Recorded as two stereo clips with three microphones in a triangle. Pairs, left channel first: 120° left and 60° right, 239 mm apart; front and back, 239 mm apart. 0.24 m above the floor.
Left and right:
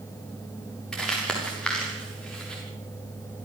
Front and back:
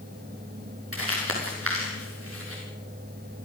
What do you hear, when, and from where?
0.9 s crumpling: 155° right, 6 m